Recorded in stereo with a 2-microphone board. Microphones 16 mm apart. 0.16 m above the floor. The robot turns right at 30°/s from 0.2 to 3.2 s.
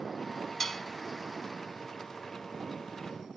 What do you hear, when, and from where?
0.6 s dishes clattering: 20° left (ahead or behind)